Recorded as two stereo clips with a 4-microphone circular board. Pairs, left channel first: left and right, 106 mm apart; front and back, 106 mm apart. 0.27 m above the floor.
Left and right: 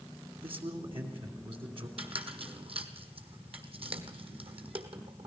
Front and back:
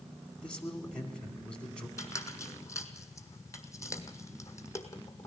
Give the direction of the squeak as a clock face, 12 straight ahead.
2 o'clock.